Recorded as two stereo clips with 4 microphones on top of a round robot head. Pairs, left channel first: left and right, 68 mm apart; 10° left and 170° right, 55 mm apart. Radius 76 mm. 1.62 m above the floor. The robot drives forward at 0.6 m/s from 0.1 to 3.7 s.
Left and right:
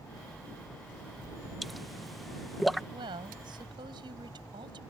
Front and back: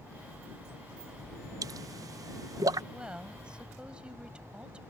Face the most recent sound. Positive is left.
turn(degrees=-95)